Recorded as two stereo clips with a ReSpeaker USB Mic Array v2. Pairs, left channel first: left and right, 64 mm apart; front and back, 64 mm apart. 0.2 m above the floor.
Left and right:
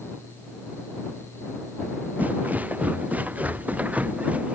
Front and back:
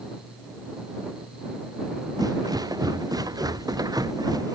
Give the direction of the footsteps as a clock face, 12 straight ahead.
5 o'clock.